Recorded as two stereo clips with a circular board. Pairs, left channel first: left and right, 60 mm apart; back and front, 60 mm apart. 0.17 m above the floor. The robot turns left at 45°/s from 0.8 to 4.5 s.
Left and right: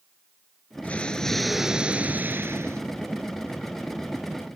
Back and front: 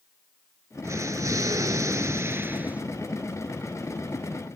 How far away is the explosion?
About 0.7 m.